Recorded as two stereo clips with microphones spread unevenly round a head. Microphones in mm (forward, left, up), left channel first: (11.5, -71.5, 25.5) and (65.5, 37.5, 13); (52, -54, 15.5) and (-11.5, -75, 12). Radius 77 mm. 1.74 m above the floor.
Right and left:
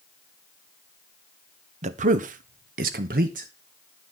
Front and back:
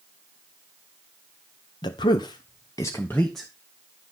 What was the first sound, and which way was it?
A man speaking, 35° left.